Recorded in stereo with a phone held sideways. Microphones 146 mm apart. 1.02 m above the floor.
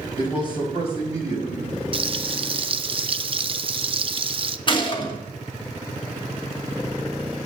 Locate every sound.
0.2 s a man speaking: 35° left (ahead or behind), 5 m; by 1.8 s 50° left (ahead or behind), 5.5 m
1.9 s frying: 40° right (ahead or behind), 0.5 m
4.7 s a gunshot: 35° left (ahead or behind), 2.5 m